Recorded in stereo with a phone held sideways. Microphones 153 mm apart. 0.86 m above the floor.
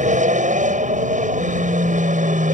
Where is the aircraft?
55° right (ahead or behind).